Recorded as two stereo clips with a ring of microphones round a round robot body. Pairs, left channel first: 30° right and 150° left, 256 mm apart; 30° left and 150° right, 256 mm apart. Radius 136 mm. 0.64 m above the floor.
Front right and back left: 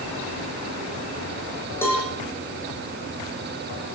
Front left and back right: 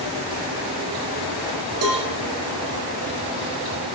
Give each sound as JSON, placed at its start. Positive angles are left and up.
{"t": 1.8, "sound": "a cowbell", "azimuth_deg": -110, "distance_m": 10.0}